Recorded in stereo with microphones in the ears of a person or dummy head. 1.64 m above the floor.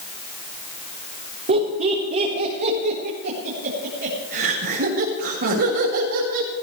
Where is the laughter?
40° right (ahead or behind), 4.5 m; by 6.5 s 65° right (ahead or behind), 5.5 m.